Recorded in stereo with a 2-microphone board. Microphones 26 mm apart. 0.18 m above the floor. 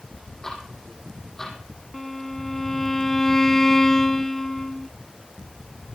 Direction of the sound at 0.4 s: 15° left (ahead or behind).